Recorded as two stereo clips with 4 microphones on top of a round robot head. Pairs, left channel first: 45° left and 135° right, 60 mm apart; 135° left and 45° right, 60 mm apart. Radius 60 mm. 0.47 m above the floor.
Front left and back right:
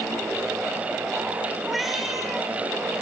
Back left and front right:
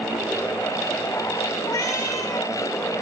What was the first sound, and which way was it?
A cat meowing, 140° left.